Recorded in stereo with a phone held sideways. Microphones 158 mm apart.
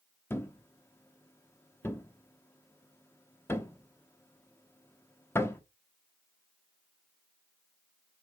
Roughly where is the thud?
Centre.